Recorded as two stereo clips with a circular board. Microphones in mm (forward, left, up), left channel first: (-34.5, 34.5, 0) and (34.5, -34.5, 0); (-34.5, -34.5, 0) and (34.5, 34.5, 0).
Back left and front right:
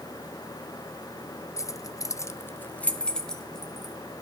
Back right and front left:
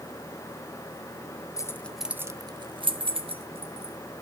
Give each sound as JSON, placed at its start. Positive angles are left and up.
{"t": 1.6, "sound": "keys jangling", "azimuth_deg": 180, "distance_m": 0.7}